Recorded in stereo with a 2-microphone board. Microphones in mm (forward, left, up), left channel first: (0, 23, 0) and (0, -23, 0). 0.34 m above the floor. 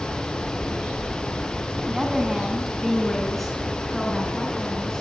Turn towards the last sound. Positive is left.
turn(degrees=15)  # may be behind; listen again after turning